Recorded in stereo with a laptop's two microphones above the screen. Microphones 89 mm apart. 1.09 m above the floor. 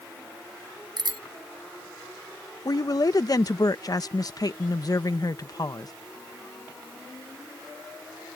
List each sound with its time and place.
1.0 s a bicycle bell: 55° right (ahead or behind)
2.6 s a woman speaking: 45° left (ahead or behind)